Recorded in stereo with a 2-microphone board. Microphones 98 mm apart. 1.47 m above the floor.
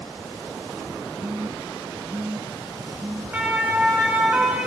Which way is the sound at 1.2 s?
20° right (ahead or behind).